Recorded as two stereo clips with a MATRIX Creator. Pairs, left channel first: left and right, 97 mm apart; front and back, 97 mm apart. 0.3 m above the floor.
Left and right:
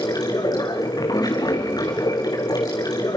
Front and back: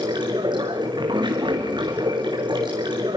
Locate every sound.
0.0 s running water: 135° left, 3 m